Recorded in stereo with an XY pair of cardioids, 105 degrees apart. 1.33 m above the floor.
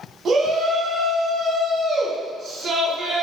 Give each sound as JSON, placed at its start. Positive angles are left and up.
{"t": 0.2, "sound": "a shout", "azimuth_deg": -50, "distance_m": 1.1}